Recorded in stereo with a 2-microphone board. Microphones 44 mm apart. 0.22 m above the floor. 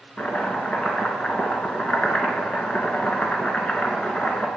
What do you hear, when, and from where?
0.2 s chopping: 25° left (ahead or behind), 1.7 m